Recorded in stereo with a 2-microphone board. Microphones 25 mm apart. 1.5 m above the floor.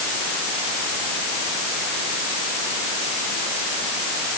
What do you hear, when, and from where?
Only background noise.